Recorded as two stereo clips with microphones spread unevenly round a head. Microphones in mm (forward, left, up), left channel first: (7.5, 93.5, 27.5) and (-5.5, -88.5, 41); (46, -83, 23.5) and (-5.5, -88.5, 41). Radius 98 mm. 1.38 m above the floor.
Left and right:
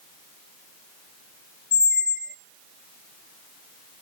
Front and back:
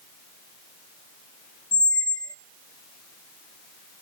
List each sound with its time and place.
1.7 s a squeak: 30° left, 0.7 m